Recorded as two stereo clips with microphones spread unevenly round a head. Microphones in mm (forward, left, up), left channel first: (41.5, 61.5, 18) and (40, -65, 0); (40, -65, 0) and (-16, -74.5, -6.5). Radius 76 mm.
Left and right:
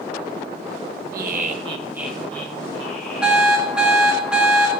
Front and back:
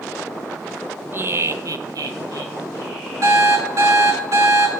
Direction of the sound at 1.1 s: 120° right.